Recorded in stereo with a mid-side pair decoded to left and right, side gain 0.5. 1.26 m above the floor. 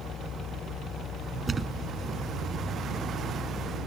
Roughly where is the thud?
Ahead right.